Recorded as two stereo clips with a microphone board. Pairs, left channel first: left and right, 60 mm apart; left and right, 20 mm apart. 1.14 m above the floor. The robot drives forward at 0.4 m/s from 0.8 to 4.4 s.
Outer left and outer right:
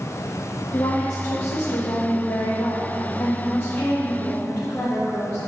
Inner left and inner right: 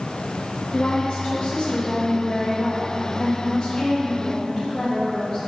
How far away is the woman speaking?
About 1.0 m.